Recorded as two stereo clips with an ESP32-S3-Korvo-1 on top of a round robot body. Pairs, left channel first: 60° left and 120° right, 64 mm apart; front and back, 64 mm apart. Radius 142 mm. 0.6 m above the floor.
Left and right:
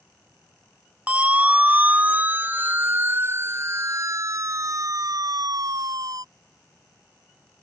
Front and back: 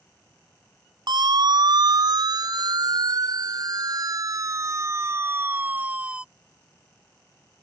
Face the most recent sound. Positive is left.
turn(degrees=-105)